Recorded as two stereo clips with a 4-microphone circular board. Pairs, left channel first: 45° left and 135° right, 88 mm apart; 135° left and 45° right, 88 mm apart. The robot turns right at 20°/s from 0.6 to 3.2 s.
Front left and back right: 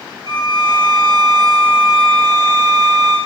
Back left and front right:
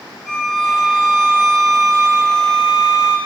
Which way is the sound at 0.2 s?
155° right.